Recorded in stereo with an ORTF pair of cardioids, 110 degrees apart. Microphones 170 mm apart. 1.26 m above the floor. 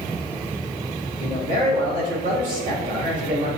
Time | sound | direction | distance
1.2 | a man speaking | 55° right | 1.7 m